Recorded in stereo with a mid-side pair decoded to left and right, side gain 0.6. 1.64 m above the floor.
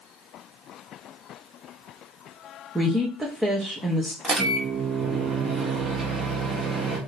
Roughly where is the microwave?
Ahead right.